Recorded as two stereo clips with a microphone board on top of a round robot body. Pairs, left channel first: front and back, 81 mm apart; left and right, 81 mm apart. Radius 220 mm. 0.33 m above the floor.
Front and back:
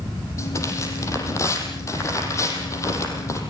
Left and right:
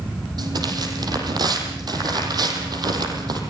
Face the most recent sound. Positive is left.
turn(degrees=-55)